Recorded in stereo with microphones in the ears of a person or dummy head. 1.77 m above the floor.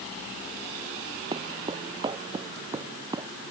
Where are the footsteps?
30° right (ahead or behind); by 3.3 s 20° right (ahead or behind).